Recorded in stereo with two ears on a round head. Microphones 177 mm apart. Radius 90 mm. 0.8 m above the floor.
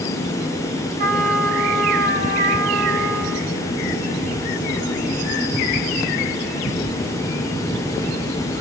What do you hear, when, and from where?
1.0 s a trumpet: 40° right (ahead or behind), 4 m